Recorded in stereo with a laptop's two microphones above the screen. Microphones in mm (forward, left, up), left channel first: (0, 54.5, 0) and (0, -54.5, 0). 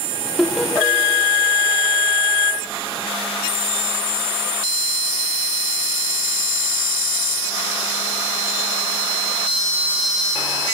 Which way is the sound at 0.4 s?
Centre (ahead or behind).